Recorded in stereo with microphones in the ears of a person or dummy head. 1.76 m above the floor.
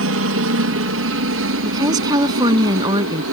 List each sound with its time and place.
0.0 s a helicopter: 65° right (ahead or behind)
1.6 s a woman speaking: 20° right (ahead or behind)